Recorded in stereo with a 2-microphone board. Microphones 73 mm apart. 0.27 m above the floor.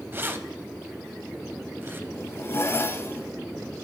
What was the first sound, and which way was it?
Keys jangling, 30° right (ahead or behind).